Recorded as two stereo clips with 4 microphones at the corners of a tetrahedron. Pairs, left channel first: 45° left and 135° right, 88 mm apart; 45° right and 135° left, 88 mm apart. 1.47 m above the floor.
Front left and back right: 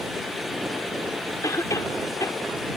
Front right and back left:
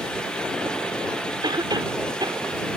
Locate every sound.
1.4 s a cough: 100° left